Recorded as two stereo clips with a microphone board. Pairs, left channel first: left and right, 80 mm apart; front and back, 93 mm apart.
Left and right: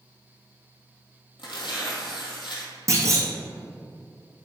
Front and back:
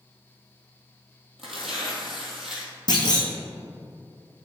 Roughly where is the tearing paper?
Left.